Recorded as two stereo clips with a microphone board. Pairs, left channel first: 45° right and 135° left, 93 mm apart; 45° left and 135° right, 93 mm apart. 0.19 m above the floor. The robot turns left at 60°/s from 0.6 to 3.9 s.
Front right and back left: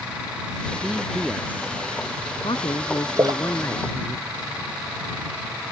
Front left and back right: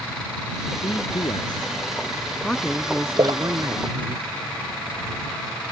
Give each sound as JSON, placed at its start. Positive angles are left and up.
{"t": 0.8, "sound": "a man speaking", "azimuth_deg": 65}
{"t": 3.2, "sound": "a splash", "azimuth_deg": -170}